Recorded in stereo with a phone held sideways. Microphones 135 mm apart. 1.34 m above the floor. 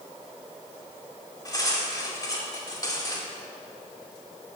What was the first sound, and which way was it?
Cutlery clinking, 25° left (ahead or behind).